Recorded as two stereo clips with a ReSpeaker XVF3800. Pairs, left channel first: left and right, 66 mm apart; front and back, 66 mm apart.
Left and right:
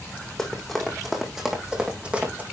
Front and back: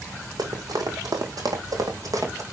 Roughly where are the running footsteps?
Behind.